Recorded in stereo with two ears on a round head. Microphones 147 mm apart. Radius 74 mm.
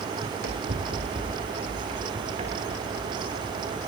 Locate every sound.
0.2 s running footsteps: 60° right (ahead or behind), 4 m; by 3.6 s 25° right (ahead or behind), 7 m